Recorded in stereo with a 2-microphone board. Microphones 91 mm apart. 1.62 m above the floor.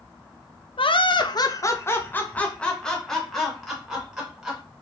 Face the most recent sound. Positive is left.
turn(degrees=-5)  # may be behind; listen again after turning